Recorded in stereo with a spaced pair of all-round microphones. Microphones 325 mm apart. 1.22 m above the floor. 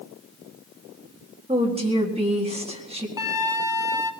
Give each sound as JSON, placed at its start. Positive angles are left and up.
{"t": 1.5, "sound": "a woman speaking", "side_deg": -15, "distance_m": 1.8}
{"t": 3.2, "sound": "a flute", "side_deg": 75, "distance_m": 0.6}